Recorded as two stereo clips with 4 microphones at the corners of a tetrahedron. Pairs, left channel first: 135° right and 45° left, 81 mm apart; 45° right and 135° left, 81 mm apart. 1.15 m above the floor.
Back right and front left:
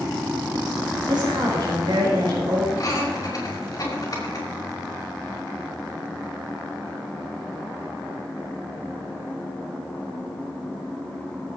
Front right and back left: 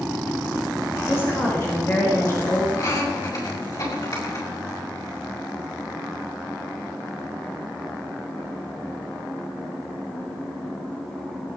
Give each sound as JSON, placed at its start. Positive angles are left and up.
{"t": 1.1, "sound": "a woman speaking", "azimuth_deg": 15, "distance_m": 4.5}
{"t": 2.8, "sound": "laughter", "azimuth_deg": -85, "distance_m": 5.5}